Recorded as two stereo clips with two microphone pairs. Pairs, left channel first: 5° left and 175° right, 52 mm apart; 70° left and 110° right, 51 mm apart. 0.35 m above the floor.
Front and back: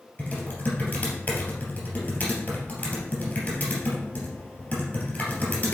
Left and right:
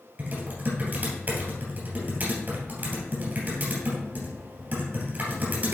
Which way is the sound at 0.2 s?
55° right.